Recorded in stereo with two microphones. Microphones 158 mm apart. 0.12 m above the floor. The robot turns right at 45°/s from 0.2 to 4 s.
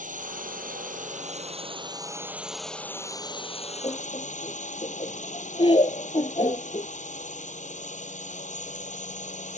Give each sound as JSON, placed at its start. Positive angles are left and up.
{"t": 0.0, "sound": "a drone", "azimuth_deg": -105}
{"t": 3.8, "sound": "laughter", "side_deg": 30}